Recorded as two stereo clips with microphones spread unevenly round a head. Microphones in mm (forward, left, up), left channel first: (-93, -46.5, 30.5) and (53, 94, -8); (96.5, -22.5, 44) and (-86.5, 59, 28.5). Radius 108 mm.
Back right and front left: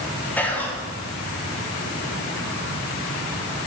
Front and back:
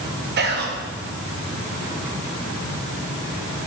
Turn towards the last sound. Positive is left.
turn(degrees=135)